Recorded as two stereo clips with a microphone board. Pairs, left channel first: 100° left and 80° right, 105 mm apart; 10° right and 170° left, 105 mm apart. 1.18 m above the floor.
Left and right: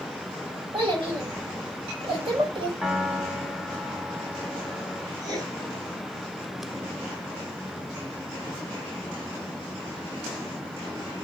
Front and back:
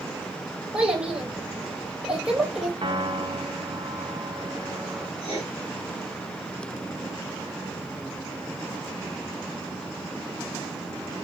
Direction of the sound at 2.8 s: 165° right.